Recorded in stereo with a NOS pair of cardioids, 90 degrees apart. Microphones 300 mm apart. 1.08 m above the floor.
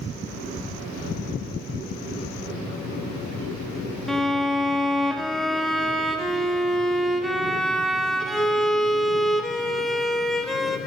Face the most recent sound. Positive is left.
turn(degrees=0)